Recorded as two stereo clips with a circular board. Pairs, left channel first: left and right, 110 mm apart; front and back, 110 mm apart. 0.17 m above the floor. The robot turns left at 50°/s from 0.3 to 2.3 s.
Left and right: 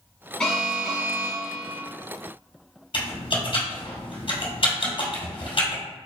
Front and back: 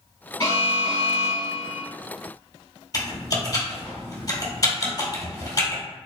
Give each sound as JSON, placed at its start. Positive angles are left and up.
{"t": 0.4, "sound": "an alarm", "azimuth_deg": 10, "distance_m": 1.6}
{"t": 2.9, "sound": "typing on a keyboard", "azimuth_deg": 55, "distance_m": 2.0}